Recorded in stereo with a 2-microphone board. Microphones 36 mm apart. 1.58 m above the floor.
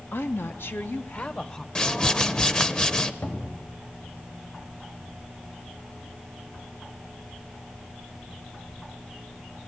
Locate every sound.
0.1 s a woman speaking: 70° left (ahead or behind), 1.1 m; by 1.6 s 20° left (ahead or behind), 1.2 m
1.8 s a whoosh: 20° left (ahead or behind), 0.8 m
3.2 s a cupboard door: 55° left (ahead or behind), 2.5 m